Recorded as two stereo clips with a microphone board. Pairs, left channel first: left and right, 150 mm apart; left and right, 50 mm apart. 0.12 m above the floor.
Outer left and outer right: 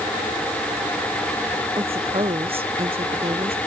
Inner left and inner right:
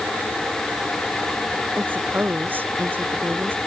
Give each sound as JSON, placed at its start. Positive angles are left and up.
{"t": 1.8, "sound": "a woman speaking", "side_deg": -40}